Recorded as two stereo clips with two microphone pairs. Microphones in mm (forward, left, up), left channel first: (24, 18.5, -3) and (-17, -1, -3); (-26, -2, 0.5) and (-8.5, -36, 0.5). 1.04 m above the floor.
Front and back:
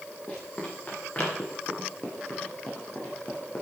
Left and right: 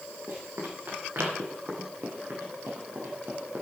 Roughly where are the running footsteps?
Ahead right.